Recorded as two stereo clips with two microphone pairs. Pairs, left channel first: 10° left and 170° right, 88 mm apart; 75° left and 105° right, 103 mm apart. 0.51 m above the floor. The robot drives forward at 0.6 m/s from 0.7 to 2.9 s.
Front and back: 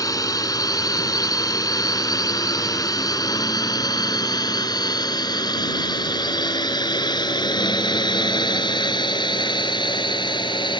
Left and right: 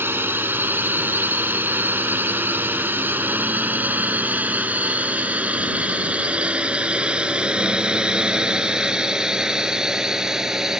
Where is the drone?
35° right; by 10.8 s 20° right.